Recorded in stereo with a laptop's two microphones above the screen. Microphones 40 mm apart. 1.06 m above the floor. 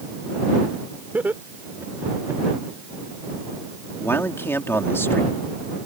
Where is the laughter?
45° right (ahead or behind); by 2.4 s 60° right (ahead or behind).